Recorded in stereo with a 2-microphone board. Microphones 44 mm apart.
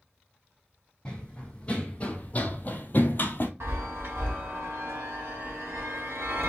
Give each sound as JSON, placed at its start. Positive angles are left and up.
{"t": 1.1, "sound": "running footsteps", "side_deg": 20, "distance_m": 1.4}
{"t": 3.6, "sound": "a chime", "side_deg": -60, "distance_m": 1.6}